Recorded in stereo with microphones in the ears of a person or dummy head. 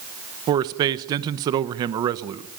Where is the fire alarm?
I don't hear a fire alarm.